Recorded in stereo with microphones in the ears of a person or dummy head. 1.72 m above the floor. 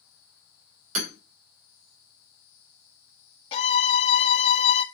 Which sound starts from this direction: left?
A violin, at 3.5 s.